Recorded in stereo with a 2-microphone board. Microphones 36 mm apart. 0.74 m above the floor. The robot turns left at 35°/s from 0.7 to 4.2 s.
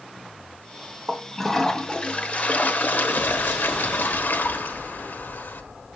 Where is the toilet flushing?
175° right, 1.3 m; by 5.6 s 75° left, 1.3 m.